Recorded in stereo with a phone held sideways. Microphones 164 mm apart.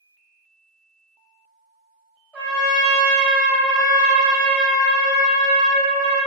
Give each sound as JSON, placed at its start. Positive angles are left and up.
{"t": 2.3, "sound": "a trumpet", "side_deg": 15, "distance_m": 1.6}